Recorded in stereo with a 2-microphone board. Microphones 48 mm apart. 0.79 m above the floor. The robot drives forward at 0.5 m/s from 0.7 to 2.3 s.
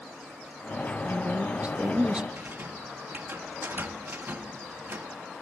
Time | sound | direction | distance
1.0 | a woman speaking | 30° right (ahead or behind) | 0.5 m
2.4 | a rattle | 45° right (ahead or behind) | 1.4 m